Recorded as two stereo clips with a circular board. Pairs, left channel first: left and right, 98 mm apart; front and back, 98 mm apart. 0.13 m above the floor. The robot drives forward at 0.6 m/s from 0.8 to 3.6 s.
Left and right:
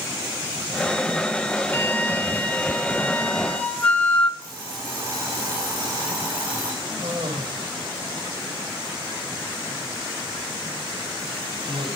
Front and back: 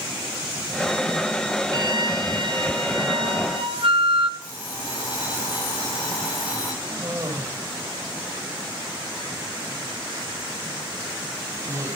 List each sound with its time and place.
1.7 s a flute: 150° left, 1.2 m; by 4.3 s 165° left, 2 m
4.4 s an alarm clock: 30° right, 9.5 m
6.8 s a cough: 120° right, 5 m